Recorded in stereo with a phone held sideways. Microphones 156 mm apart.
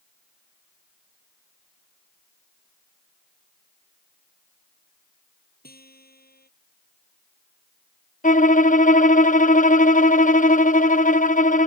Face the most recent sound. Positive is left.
turn(degrees=55)  # may be behind; listen again after turning